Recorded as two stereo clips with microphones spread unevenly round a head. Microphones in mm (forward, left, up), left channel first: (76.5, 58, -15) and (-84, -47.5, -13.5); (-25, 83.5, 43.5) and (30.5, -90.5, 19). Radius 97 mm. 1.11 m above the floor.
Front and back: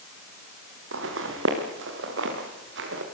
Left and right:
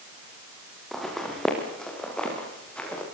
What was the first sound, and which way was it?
Footsteps, 165° right.